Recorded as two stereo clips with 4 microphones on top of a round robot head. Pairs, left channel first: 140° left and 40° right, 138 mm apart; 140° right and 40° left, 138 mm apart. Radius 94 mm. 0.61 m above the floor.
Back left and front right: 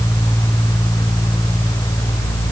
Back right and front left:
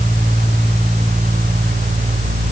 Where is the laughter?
I don't hear laughter.